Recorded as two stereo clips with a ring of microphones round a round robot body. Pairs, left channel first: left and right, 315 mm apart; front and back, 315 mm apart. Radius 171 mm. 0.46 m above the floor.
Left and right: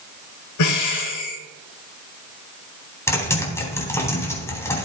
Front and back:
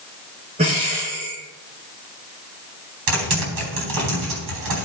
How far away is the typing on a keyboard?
About 4 m.